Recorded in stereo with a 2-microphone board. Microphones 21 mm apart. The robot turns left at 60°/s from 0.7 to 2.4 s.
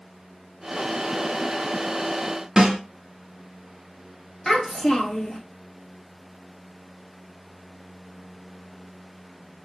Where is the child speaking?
30° left (ahead or behind), 0.9 m.